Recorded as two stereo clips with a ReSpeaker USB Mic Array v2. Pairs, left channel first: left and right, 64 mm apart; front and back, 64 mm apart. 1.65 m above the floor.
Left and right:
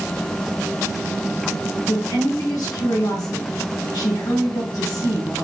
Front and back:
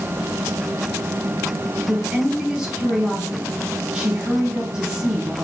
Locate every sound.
1.9 s a woman speaking: 105° left, 3 m